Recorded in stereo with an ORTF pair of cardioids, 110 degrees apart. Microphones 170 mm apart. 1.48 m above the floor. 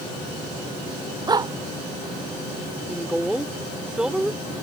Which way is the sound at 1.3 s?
25° right.